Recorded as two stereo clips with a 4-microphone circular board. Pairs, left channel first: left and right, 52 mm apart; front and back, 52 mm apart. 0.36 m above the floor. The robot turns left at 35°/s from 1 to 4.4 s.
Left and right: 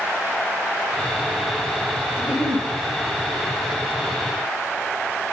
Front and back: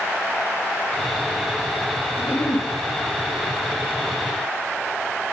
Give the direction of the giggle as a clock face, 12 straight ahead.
1 o'clock.